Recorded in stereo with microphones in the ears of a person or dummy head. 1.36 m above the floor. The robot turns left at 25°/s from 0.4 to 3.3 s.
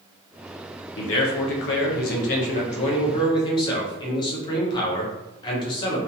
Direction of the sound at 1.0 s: 85° left.